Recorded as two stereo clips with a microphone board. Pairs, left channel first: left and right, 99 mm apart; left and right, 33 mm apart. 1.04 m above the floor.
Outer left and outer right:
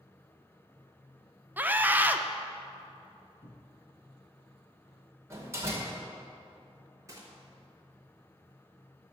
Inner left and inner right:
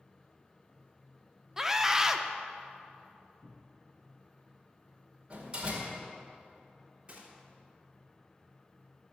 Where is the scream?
15° right (ahead or behind), 0.6 m.